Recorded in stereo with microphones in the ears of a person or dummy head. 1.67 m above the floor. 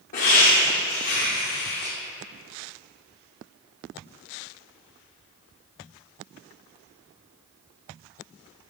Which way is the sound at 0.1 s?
45° left (ahead or behind).